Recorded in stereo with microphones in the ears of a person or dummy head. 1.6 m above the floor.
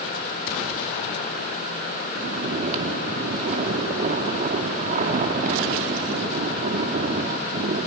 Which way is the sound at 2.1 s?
40° right (ahead or behind).